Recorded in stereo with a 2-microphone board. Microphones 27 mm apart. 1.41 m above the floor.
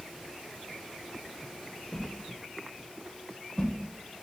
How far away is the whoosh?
About 0.5 m.